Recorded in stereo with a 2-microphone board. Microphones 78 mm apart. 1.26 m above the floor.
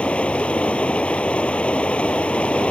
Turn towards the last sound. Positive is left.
turn(degrees=15)  # may be behind; listen again after turning